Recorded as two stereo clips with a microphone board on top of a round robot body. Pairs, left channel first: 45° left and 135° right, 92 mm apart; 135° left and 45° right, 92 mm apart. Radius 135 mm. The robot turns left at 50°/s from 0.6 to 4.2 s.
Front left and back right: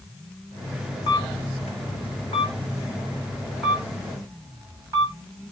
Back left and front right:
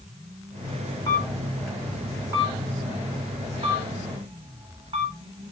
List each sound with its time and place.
1.1 s a camera shutter: 80° left, 1.2 m; by 5.5 s 75° right, 1.2 m